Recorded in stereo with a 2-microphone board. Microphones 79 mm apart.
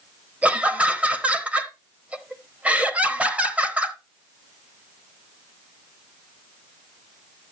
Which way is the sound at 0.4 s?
15° right (ahead or behind).